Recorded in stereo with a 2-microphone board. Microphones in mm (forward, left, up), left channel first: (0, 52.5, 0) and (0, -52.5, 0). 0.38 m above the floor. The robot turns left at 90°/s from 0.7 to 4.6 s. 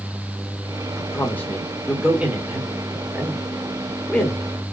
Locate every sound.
0.9 s a man speaking: 20° left (ahead or behind), 0.9 m